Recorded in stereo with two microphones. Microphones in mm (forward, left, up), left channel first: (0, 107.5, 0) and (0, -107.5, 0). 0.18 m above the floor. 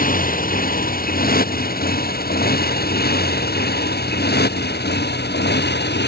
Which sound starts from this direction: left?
A motorcycle, at 0.0 s.